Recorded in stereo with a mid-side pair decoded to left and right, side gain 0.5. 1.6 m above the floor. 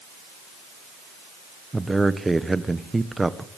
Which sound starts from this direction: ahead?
A man speaking, at 1.7 s.